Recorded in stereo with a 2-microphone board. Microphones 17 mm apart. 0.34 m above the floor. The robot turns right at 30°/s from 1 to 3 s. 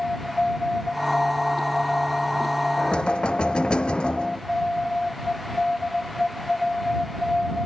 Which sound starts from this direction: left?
Knocking, at 2.8 s.